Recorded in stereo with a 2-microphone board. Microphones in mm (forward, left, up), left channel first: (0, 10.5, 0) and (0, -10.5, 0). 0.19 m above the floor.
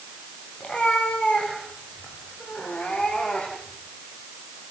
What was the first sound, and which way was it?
A cat meowing, 45° left (ahead or behind).